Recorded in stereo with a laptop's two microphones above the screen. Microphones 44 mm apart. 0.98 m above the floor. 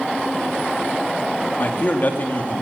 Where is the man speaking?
45° left (ahead or behind), 2.5 m.